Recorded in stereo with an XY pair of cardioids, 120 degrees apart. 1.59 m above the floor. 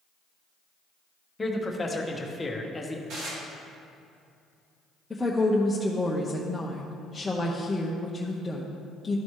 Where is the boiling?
I don't hear boiling.